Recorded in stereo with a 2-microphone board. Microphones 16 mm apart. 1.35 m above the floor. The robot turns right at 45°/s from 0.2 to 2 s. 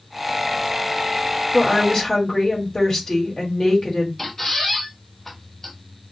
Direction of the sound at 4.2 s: 25° left (ahead or behind).